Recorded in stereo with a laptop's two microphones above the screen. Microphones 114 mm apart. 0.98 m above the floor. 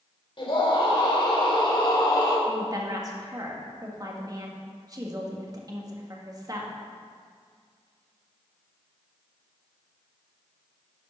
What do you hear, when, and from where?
0.4 s a scream: 50° left (ahead or behind), 3.5 m; by 2.4 s 40° left (ahead or behind), 2.5 m
2.5 s a woman speaking: 35° right (ahead or behind), 1.8 m